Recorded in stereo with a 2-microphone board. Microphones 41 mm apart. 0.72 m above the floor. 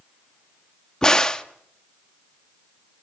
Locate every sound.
1.0 s a crack: 20° left (ahead or behind), 0.9 m